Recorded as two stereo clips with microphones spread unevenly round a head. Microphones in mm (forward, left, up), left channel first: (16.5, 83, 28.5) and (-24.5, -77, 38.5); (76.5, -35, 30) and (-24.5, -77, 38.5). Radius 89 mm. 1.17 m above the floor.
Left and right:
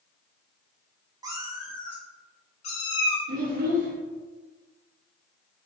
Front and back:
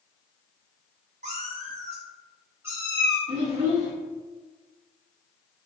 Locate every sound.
1.2 s a cat meowing: 170° right, 0.8 m; by 3.2 s 115° left, 1.3 m
3.3 s a child speaking: 130° right, 1.0 m